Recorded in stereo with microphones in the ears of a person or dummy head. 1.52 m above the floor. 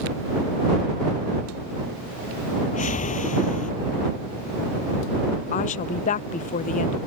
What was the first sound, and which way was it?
A whoosh, 40° left (ahead or behind).